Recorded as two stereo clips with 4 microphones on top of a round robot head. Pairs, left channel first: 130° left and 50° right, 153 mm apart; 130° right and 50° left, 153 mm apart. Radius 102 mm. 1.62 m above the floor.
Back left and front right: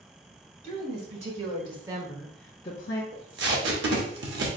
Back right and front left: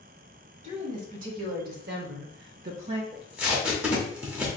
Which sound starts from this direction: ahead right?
Tape being pulled, at 3.1 s.